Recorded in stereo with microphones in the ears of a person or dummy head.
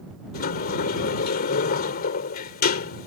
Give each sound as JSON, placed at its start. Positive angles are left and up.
{"t": 0.3, "sound": "a sliding door", "side_deg": 50}